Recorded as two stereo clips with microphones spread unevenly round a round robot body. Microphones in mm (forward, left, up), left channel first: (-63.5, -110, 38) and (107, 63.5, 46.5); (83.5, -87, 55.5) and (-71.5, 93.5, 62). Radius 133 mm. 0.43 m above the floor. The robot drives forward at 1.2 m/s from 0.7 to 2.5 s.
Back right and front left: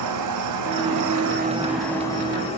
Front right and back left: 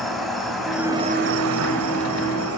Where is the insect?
40° left, 0.9 m; by 2.6 s 155° left, 1.6 m.